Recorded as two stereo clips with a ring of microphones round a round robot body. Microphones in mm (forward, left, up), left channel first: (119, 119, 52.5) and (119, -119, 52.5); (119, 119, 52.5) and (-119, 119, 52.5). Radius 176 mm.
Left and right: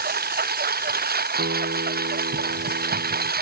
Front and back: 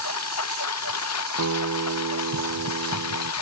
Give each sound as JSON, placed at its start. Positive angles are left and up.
{"t": 0.0, "sound": "a lawn mower", "azimuth_deg": -40}
{"t": 1.4, "sound": "a guitar", "azimuth_deg": -145}